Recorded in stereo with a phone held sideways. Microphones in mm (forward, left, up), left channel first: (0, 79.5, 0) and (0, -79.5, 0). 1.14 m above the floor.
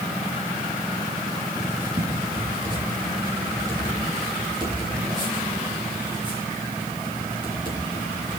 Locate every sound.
1.6 s writing: 30° right (ahead or behind), 8.5 m